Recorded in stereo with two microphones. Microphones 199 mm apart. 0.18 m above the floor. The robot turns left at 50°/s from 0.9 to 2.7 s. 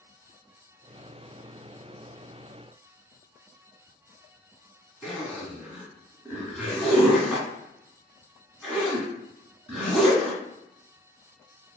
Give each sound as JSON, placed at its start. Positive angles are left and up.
{"t": 5.0, "sound": "a zipper", "side_deg": 0, "distance_m": 1.4}